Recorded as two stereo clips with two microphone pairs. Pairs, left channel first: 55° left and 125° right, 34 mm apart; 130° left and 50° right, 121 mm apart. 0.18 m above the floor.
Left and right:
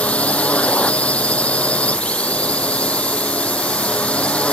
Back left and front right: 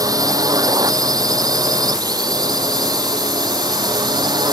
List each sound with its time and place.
0.0 s a drone: 5° left